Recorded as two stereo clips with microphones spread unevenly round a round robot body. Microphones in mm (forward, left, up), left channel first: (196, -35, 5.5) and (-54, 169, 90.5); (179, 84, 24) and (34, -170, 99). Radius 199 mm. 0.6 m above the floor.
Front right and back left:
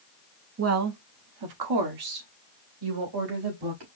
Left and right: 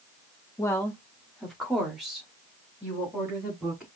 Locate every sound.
0.6 s a woman speaking: 100° left, 0.9 m; by 3.9 s 150° left, 3 m